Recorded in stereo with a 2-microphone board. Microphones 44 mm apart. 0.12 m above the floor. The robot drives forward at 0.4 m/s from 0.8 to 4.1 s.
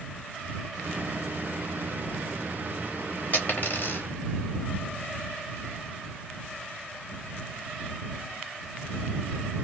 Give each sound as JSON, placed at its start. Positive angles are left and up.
{"t": 3.3, "sound": "a dropped coin", "side_deg": 45, "distance_m": 1.0}